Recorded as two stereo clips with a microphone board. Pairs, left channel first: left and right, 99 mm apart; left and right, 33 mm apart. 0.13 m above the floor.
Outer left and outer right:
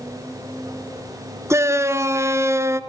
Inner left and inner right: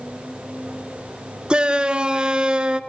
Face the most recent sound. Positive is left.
turn(degrees=-30)  # may be behind; listen again after turning